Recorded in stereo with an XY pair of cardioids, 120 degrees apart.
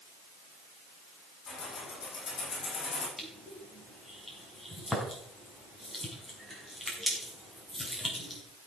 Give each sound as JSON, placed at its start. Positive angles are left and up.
{"t": 1.5, "sound": "keys jangling", "azimuth_deg": 40, "distance_m": 7.0}
{"t": 3.2, "sound": "crushing", "azimuth_deg": 5, "distance_m": 4.5}